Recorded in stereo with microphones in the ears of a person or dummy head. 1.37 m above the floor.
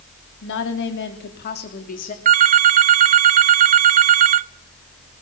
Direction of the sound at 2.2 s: 40° right (ahead or behind).